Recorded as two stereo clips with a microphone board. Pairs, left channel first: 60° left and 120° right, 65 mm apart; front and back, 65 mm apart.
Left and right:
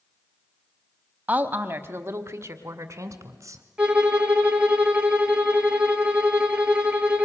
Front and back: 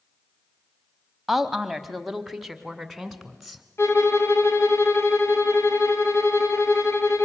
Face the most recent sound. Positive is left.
turn(degrees=-50)